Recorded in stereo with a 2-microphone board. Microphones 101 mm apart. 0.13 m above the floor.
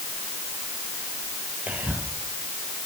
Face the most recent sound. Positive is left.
turn(degrees=-15)  # may be behind; listen again after turning